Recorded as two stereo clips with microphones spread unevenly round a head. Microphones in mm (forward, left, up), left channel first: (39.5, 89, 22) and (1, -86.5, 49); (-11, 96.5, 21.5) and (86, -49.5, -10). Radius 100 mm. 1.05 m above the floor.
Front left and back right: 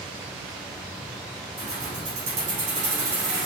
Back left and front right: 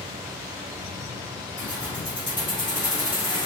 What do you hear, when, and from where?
1.6 s keys jangling: 155° right, 1.9 m